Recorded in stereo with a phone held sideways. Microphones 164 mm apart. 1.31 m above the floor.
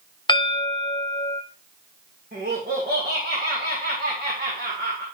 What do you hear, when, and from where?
0.3 s a bell: 30° left (ahead or behind), 0.6 m
2.3 s laughter: 70° right (ahead or behind), 2 m